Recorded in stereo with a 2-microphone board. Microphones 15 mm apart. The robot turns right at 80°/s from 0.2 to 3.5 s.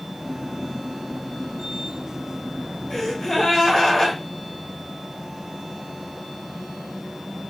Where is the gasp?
65° left, 1.6 m; by 4.2 s 115° left, 1.6 m.